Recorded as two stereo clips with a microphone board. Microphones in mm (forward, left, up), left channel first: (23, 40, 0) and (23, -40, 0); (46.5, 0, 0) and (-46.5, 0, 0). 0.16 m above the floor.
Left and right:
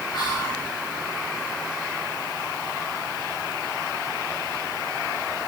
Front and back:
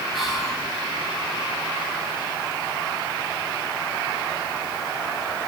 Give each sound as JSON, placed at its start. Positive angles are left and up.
{"t": 0.1, "sound": "whispering", "azimuth_deg": 90, "distance_m": 3.0}